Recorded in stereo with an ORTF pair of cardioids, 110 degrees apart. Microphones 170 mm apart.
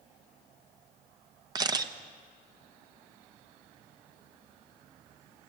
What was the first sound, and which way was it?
A camera shutter, 25° right.